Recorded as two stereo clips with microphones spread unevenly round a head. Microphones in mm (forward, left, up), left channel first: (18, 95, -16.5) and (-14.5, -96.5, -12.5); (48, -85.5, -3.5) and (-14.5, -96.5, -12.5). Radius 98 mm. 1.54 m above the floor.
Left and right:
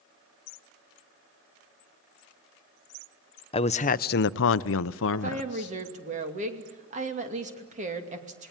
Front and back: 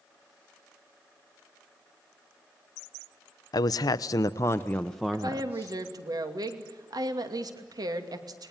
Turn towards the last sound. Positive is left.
turn(degrees=-155)